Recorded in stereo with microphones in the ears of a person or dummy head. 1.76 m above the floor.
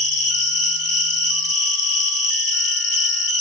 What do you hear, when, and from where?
0.0 s an insect: 55° left (ahead or behind), 2 m